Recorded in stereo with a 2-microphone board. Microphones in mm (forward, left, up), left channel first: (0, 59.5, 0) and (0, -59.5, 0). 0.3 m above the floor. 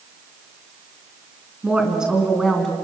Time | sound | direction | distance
1.6 | a woman speaking | 10° right (ahead or behind) | 4 m